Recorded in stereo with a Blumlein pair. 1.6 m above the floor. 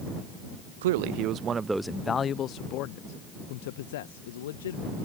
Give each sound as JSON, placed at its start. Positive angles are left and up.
{"t": 0.8, "sound": "a man speaking", "azimuth_deg": -60}